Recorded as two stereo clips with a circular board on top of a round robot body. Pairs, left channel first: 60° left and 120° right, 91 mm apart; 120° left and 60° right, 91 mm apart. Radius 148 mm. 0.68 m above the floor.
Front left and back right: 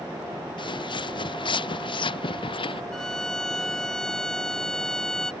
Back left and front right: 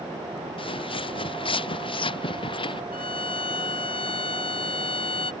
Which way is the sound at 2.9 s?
145° left.